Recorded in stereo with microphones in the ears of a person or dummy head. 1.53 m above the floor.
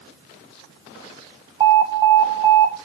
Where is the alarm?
25° right (ahead or behind), 1.6 m.